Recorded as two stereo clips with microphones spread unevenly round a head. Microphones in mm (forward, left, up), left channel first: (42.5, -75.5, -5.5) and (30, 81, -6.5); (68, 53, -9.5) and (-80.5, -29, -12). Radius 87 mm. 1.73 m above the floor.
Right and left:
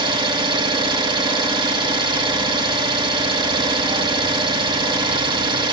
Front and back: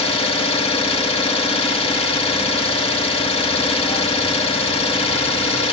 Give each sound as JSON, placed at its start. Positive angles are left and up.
{"t": 0.0, "sound": "an engine running", "azimuth_deg": 55, "distance_m": 1.3}